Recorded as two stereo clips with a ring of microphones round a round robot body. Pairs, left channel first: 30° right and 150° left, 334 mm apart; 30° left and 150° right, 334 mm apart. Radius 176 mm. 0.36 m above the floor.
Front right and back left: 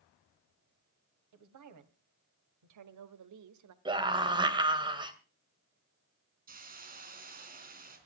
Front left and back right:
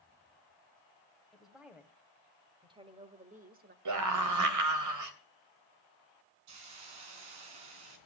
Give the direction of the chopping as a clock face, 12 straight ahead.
I don't hear chopping.